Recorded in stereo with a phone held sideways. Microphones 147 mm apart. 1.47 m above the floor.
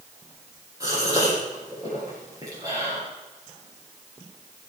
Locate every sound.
0.8 s a gasp: 25° right (ahead or behind), 8.5 m